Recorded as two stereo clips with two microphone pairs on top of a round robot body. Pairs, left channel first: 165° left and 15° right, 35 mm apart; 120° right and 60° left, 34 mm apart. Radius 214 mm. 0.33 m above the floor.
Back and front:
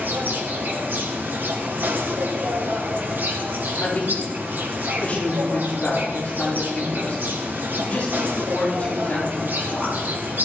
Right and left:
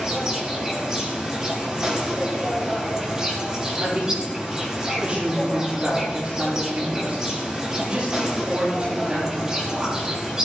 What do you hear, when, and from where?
0.0 s an insect: 15° right, 4 m
3.8 s a woman speaking: 115° left, 9 m